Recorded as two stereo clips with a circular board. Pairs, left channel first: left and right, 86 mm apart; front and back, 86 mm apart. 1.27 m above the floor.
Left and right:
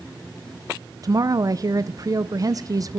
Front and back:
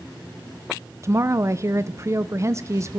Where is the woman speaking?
130° right, 0.8 m.